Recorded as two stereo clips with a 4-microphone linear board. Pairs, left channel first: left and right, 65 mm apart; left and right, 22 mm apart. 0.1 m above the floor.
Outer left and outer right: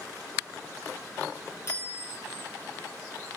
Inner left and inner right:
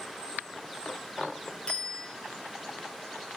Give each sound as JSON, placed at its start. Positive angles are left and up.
{"t": 1.7, "sound": "a bicycle bell", "side_deg": 45, "distance_m": 8.5}